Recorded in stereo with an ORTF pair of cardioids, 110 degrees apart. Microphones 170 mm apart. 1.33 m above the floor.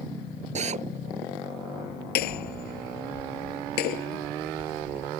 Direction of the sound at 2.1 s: 70° left.